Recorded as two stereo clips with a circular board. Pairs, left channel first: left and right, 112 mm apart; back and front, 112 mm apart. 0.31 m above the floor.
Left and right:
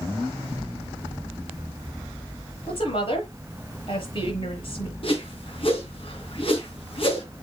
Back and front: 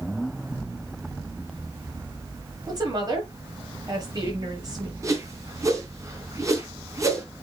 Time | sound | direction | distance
2.7 | a woman speaking | 55° left | 6 m
5.0 | a whoosh | 60° left | 3 m